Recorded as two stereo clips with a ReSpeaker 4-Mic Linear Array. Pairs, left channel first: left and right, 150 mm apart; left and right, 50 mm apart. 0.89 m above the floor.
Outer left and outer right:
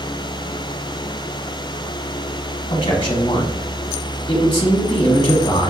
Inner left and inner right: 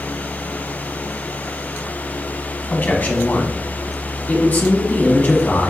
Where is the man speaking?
35° left (ahead or behind), 0.9 m.